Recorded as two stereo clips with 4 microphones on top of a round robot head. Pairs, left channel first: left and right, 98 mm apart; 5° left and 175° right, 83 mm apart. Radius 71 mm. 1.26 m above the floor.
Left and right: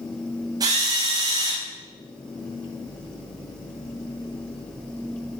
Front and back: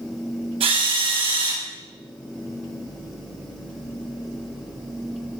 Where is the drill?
150° right, 9.5 m.